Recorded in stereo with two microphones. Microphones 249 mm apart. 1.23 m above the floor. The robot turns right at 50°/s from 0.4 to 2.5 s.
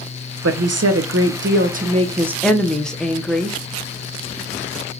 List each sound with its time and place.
0.4 s a woman speaking: 100° right, 0.6 m; by 3.6 s 5° left, 0.6 m